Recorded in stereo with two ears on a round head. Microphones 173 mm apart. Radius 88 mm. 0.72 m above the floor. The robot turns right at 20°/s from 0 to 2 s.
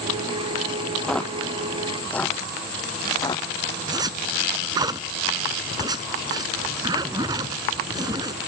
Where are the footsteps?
5° left (ahead or behind); by 3.5 s 25° left (ahead or behind).